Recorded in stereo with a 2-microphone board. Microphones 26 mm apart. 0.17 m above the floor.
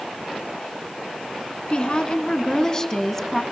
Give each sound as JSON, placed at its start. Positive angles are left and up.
{"t": 1.7, "sound": "a woman speaking", "side_deg": 40, "distance_m": 1.7}